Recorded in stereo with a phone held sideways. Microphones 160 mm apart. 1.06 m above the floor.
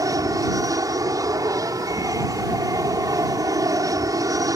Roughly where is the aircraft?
Right.